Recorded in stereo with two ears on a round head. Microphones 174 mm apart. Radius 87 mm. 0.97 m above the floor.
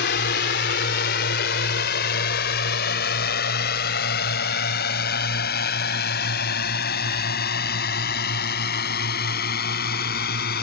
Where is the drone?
60° left (ahead or behind); by 10.6 s 55° left (ahead or behind).